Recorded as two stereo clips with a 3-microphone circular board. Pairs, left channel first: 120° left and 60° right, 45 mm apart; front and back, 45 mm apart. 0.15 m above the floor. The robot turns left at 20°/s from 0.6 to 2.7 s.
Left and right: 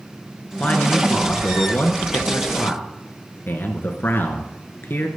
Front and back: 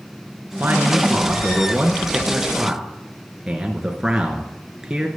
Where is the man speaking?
150° left, 2 m; by 5.1 s 110° left, 2 m.